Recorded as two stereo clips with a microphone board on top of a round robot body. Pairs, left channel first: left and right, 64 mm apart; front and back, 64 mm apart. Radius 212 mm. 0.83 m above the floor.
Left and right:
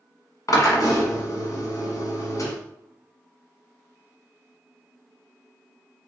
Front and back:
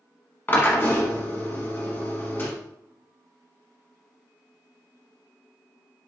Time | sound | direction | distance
0.5 | a drill | 60° left | 1.2 m